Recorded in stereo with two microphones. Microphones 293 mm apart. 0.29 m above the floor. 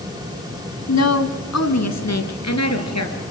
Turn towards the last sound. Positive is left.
turn(degrees=60)  # may be behind; listen again after turning